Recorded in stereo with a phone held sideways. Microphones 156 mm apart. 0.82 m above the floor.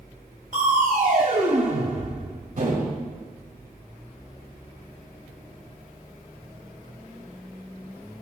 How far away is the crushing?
About 1.7 m.